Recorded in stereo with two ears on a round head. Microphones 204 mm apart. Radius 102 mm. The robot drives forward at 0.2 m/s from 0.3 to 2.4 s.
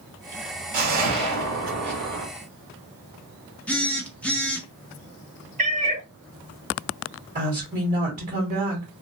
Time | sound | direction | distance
0.7 | a whoosh | 80° right | 1.6 m
3.7 | a phone buzzing | 5° left (ahead or behind) | 0.6 m
5.6 | a cat meowing | 30° right (ahead or behind) | 0.5 m
7.3 | a woman speaking | 30° right (ahead or behind) | 2.0 m